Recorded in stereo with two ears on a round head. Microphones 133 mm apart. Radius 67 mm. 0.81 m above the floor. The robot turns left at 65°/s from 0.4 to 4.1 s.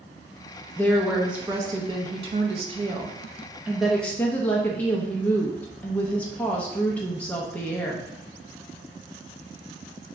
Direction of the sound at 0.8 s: 20° left.